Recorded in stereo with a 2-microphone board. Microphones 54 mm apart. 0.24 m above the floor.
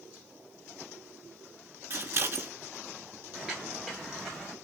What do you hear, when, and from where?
1.9 s scissors: 50° right (ahead or behind), 1.0 m
3.3 s footsteps: 15° right (ahead or behind), 1.9 m; by 4.5 s 5° left (ahead or behind), 2 m